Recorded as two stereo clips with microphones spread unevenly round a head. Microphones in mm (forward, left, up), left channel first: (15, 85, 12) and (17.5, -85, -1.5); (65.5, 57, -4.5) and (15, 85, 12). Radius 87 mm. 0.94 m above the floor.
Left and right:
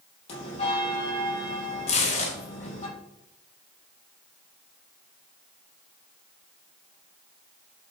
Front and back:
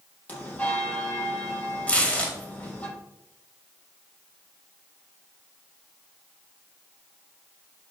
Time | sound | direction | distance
0.3 | a bell | 40° left | 5 m
1.9 | tearing paper | 40° left | 3 m